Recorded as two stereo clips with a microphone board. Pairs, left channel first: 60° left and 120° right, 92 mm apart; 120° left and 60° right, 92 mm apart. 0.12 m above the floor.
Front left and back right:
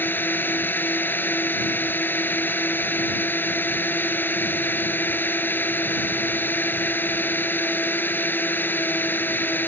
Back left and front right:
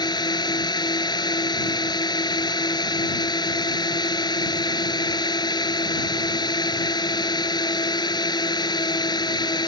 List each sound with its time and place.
0.0 s a drone: 125° left